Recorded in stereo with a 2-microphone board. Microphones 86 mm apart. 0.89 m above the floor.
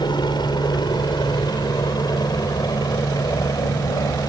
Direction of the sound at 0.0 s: 60° left (ahead or behind).